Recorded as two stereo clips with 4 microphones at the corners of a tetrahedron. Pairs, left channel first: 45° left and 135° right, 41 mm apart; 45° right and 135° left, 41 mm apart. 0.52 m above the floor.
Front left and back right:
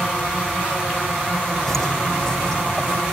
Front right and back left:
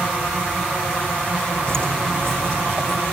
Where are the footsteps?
125° left, 1.7 m; by 3.0 s 120° left, 3 m.